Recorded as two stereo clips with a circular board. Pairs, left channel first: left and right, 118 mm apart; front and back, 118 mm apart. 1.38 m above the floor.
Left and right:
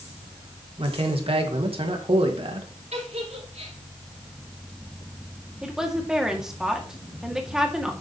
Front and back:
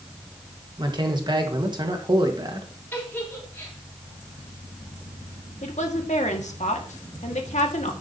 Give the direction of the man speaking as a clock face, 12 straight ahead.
4 o'clock.